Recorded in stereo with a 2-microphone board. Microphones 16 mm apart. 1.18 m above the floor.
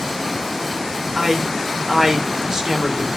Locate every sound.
1.1 s a man speaking: 50° right (ahead or behind), 4 m